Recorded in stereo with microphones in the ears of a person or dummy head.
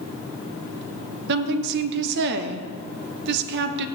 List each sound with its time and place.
1.3 s a woman speaking: 50° right (ahead or behind), 0.9 m